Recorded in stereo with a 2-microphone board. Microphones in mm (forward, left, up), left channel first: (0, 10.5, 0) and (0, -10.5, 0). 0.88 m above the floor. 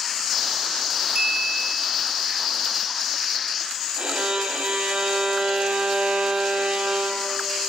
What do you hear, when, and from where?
1.1 s a clink: 45° right (ahead or behind), 5.5 m
4.0 s a violin: 65° right (ahead or behind), 4 m